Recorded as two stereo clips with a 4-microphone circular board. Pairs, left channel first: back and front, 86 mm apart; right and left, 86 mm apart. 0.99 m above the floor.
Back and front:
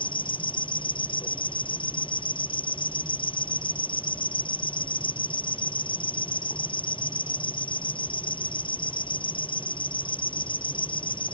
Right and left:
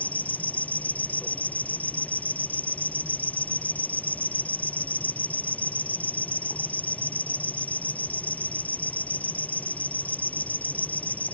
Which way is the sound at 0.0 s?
160° right.